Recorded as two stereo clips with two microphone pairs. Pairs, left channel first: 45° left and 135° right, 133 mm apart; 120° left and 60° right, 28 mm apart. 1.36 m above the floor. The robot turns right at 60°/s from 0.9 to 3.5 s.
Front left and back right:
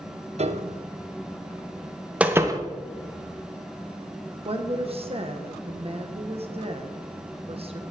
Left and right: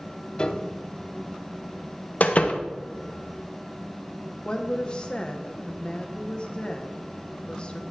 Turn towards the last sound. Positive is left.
turn(degrees=180)